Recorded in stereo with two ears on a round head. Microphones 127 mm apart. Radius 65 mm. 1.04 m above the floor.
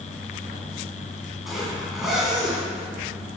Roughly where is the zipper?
Centre.